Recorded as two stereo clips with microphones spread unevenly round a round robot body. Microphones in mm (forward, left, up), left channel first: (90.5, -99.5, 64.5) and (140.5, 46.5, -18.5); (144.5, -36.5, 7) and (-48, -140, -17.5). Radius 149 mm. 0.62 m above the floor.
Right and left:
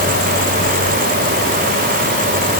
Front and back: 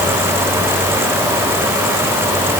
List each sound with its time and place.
Only background noise.